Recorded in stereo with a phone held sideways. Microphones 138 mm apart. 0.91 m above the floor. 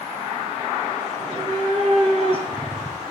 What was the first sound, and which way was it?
A cat meowing, 55° right (ahead or behind).